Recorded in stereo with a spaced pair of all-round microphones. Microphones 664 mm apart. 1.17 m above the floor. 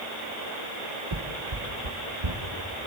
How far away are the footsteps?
About 1.9 m.